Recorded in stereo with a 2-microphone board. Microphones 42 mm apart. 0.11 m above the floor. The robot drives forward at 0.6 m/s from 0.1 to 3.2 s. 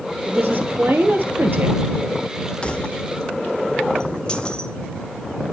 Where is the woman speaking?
55° right (ahead or behind), 3 m; by 1.8 s 60° right (ahead or behind), 3 m.